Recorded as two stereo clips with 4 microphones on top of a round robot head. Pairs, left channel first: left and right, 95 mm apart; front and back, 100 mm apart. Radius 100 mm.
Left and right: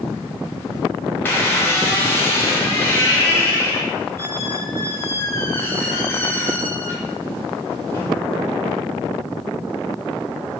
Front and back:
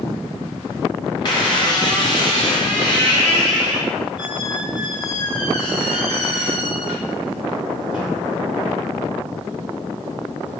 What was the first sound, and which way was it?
A squeak, 25° left.